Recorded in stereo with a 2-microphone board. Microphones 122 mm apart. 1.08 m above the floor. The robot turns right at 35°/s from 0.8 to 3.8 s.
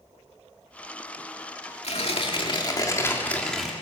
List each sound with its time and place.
1.8 s tearing paper: 115° left, 2.5 m; by 3.7 s straight behind, 2.5 m